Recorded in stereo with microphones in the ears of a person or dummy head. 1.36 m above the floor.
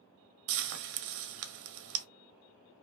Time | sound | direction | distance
0.5 | frying | 70° right (ahead or behind) | 0.5 m